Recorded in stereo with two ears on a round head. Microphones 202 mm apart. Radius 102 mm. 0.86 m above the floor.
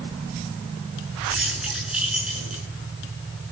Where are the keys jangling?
5° right (ahead or behind), 8 m.